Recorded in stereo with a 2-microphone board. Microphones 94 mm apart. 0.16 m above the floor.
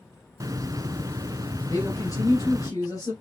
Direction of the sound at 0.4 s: 35° right (ahead or behind).